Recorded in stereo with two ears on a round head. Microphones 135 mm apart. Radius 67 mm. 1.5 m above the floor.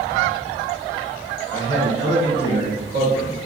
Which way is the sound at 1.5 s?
35° right (ahead or behind).